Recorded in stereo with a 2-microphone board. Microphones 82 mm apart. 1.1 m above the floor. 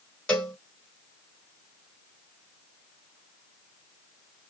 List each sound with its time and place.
0.3 s a cowbell: 10° left (ahead or behind), 1.6 m